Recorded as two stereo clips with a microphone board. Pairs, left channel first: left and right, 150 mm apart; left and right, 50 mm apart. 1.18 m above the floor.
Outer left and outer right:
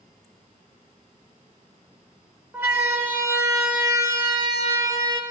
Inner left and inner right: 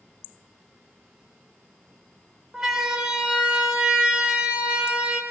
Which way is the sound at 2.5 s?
15° right (ahead or behind).